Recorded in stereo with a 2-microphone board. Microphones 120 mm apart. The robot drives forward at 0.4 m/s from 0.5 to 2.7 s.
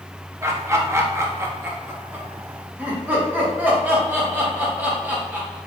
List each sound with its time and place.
0.4 s laughter: 25° right (ahead or behind), 0.7 m; by 5.6 s 15° right (ahead or behind), 1.1 m